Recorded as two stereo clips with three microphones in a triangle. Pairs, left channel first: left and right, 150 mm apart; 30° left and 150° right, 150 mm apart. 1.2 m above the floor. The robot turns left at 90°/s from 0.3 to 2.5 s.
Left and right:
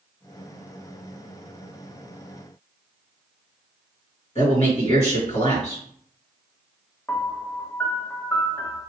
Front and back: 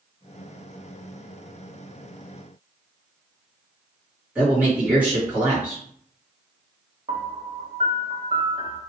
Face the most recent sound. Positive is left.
turn(degrees=165)